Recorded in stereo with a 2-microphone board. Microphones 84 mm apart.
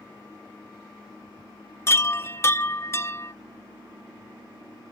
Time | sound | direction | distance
1.9 | a chime | 30° left (ahead or behind) | ?